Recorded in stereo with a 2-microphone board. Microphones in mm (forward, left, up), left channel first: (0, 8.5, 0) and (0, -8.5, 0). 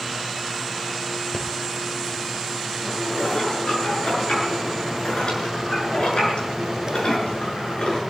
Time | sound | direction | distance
1.3 | breathing | 45° left (ahead or behind) | 3 m
2.8 | dishes clattering | 65° left (ahead or behind) | 6 m